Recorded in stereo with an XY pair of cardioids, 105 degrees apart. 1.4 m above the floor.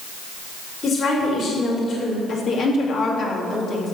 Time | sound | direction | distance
0.8 | a woman speaking | 50° left | 4.5 m
2.3 | a woman speaking | 65° left | 3 m